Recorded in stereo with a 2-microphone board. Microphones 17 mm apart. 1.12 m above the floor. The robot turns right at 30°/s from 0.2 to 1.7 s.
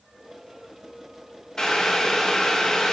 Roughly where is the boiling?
Left.